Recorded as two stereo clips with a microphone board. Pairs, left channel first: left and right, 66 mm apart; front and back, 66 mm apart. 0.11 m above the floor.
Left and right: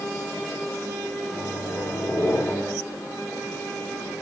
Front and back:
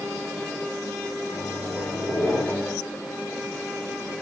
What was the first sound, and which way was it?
A microwave, 75° left.